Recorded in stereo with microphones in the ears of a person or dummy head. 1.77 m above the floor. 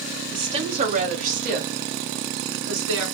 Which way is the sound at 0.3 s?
20° right (ahead or behind).